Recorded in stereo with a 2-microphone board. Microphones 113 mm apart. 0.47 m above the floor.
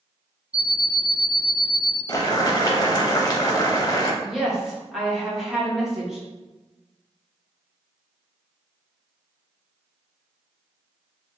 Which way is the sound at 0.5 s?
10° right (ahead or behind).